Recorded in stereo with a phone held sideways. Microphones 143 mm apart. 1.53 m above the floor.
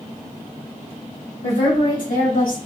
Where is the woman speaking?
60° left (ahead or behind), 1.4 m; by 2.6 s 70° left (ahead or behind), 1.3 m.